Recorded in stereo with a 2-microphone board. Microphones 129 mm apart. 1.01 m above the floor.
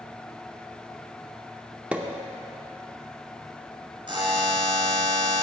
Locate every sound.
1.9 s a pop: 10° right (ahead or behind), 0.6 m
4.1 s a buzzer: 35° right (ahead or behind), 2.5 m